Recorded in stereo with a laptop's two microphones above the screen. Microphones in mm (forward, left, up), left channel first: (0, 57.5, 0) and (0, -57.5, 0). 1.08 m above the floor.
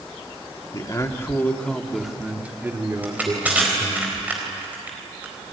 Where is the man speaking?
40° left (ahead or behind), 2.5 m; by 4.0 s 40° right (ahead or behind), 4 m.